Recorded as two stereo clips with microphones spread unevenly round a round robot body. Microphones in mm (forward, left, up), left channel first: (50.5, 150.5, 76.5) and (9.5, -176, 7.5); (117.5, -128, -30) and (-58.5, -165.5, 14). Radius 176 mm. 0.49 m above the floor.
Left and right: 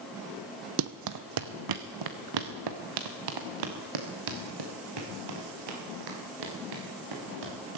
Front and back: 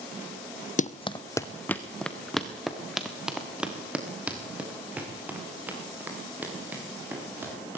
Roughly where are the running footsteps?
Ahead right.